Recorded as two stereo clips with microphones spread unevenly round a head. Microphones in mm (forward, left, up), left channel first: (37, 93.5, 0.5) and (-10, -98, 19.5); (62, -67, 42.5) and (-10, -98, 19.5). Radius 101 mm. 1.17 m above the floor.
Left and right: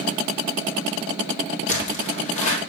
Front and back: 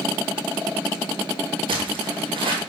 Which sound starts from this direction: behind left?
Footsteps, at 1.7 s.